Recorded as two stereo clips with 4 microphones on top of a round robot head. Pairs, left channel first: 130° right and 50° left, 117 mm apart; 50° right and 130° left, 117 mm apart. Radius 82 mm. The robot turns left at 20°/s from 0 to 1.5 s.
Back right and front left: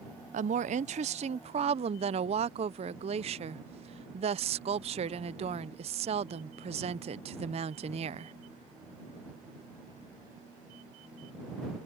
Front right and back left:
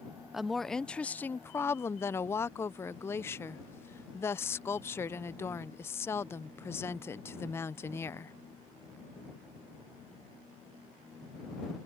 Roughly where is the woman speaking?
Ahead left.